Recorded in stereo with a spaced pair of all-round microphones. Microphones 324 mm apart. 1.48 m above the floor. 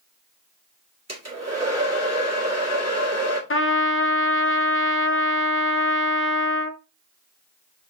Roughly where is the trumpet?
Left.